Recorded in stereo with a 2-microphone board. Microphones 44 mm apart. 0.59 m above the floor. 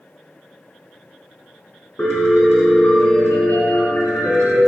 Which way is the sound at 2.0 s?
80° left.